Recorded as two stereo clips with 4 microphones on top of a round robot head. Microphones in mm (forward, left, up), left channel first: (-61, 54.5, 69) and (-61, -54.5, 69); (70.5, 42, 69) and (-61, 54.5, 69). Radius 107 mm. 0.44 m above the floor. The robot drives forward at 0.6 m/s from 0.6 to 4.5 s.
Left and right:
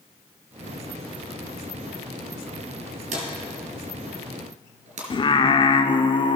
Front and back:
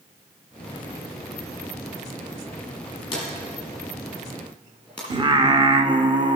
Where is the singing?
125° left, 0.7 m.